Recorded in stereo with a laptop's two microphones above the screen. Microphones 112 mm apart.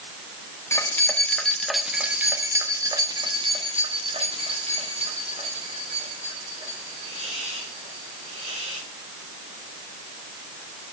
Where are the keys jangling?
25° left (ahead or behind), 1.5 m; by 8.8 s 85° right, 4 m.